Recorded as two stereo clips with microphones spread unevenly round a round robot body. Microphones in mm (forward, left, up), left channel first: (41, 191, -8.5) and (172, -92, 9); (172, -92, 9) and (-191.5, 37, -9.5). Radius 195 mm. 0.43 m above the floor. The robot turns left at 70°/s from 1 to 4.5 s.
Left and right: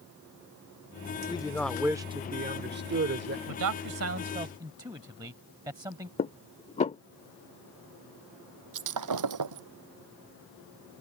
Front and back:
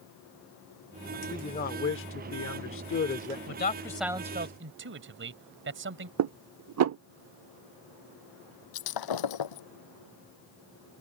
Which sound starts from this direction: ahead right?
Breaking glass, at 8.7 s.